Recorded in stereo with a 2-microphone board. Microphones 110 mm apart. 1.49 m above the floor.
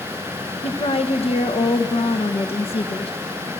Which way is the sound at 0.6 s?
65° left (ahead or behind).